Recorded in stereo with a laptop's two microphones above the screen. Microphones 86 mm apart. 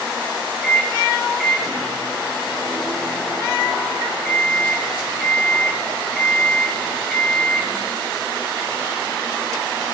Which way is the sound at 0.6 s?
Centre (ahead or behind).